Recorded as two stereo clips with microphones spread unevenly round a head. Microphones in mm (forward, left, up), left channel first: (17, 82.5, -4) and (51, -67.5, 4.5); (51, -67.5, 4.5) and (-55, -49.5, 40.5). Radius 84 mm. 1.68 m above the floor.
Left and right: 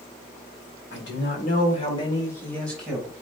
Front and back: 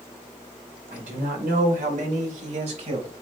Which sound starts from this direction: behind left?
A man speaking, at 0.9 s.